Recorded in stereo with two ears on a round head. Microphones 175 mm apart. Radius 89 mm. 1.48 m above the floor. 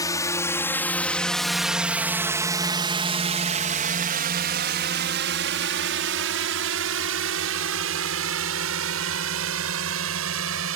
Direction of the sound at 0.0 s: 20° left (ahead or behind).